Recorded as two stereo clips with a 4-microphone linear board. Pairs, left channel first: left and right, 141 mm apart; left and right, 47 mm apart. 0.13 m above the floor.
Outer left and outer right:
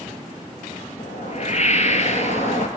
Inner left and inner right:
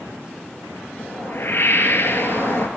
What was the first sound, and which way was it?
A whoosh, 55° left (ahead or behind).